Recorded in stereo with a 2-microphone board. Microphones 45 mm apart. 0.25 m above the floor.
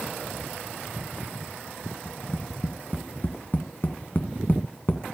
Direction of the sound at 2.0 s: 45° left (ahead or behind).